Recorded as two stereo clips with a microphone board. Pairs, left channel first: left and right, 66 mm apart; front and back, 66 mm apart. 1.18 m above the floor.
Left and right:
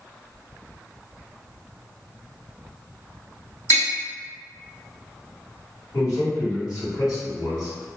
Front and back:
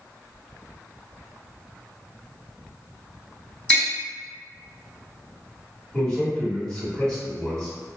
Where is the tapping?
70° left, 1.7 m.